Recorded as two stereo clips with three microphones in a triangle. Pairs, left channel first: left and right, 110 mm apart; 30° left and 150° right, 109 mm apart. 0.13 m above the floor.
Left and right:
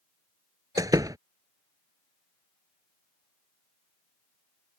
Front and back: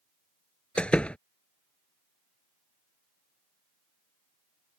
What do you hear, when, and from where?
0.8 s a door slam: 45° right